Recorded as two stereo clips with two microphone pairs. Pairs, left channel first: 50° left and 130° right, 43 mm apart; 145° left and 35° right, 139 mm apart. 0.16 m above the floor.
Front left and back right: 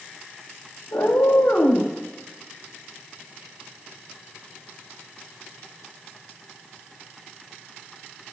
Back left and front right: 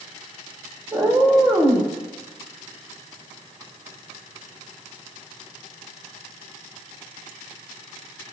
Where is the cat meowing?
40° left, 2.5 m.